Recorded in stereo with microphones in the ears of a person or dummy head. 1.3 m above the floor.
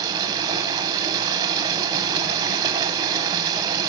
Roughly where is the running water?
Right.